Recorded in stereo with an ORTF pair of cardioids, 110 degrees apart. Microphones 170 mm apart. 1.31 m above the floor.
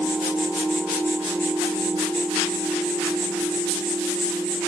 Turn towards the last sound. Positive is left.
turn(degrees=-10)